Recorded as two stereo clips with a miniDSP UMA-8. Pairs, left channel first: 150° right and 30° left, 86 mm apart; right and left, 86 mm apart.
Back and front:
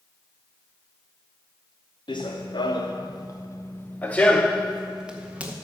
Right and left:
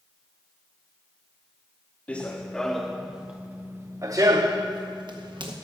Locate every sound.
2.1 s running footsteps: 165° right, 1.4 m; by 5.5 s 100° left, 1.4 m